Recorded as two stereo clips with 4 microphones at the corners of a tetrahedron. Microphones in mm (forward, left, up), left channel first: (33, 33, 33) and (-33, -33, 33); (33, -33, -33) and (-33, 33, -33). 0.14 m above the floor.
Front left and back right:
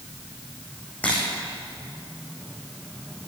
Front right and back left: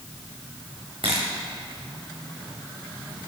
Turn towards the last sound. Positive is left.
turn(degrees=120)